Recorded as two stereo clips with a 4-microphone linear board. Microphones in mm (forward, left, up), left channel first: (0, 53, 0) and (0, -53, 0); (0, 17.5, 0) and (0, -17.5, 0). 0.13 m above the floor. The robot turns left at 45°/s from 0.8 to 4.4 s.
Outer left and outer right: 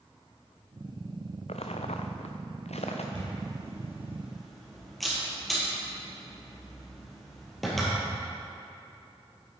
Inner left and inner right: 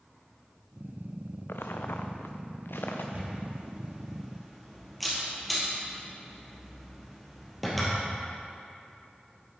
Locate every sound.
1.5 s footsteps: 80° left, 0.8 m; by 3.0 s 85° left, 1.3 m
3.1 s a camera shutter: 50° right (ahead or behind), 2.5 m; by 7.9 s centre (ahead or behind), 2.5 m